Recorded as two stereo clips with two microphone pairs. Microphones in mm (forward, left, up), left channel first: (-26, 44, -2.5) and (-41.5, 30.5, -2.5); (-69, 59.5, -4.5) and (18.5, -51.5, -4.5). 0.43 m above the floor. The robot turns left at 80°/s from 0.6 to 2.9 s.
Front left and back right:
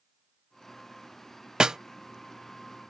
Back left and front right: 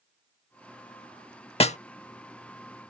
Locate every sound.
1.6 s a snare drum: 175° left; by 1.8 s 160° left